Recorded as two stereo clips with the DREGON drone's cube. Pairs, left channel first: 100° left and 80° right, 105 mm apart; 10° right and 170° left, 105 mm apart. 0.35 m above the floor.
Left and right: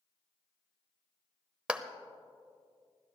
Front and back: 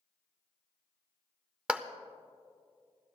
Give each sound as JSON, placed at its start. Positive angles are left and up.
{"t": 1.7, "sound": "a clap", "azimuth_deg": -130, "distance_m": 0.6}